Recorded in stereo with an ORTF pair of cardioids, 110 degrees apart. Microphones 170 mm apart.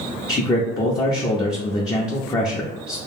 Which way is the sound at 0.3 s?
20° left.